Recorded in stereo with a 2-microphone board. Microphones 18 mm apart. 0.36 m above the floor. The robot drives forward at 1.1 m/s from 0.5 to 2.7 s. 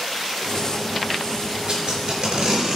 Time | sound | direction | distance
1.7 | tape being pulled | 50° right (ahead or behind) | 4.5 m